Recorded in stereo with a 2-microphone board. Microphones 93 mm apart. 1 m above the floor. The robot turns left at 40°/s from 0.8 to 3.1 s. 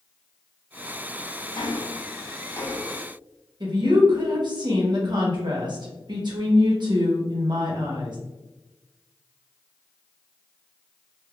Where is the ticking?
75° left, 0.6 m; by 3.0 s 15° left, 0.6 m.